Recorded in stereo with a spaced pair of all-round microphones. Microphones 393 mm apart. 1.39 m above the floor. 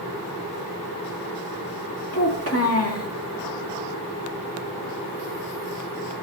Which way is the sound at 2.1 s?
35° left (ahead or behind).